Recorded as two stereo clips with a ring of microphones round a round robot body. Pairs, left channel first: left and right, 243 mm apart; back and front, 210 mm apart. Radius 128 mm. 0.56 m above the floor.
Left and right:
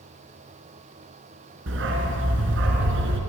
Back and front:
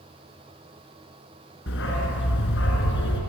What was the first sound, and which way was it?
A dog barking, 135° right.